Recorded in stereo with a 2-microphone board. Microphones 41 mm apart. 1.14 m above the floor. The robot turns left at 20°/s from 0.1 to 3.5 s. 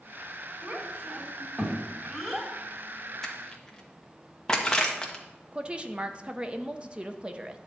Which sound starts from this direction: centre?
Crushing, at 3.2 s.